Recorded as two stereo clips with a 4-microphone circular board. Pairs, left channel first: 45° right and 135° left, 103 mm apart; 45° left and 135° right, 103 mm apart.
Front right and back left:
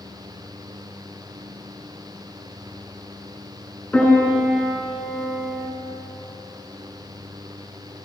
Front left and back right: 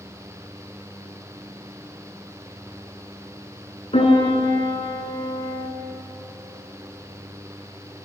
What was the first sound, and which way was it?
A piano, 30° left.